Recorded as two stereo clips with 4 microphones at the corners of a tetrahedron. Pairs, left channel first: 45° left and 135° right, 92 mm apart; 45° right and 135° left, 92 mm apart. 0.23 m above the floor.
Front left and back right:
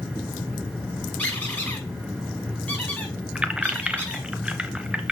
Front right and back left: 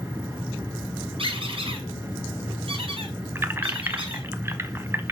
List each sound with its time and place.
1.2 s a squeak: 120° left, 5.5 m
3.4 s keys jangling: 160° left, 0.8 m